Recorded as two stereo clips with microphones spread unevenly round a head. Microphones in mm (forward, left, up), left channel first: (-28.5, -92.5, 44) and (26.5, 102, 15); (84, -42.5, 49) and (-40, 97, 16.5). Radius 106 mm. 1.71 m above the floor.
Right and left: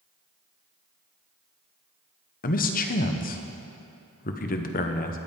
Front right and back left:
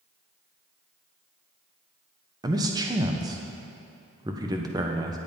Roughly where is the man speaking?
Behind right.